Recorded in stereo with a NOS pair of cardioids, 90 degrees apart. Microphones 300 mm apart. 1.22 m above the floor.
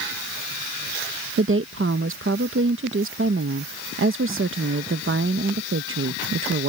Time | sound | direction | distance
1.4 | a woman speaking | 45° right | ?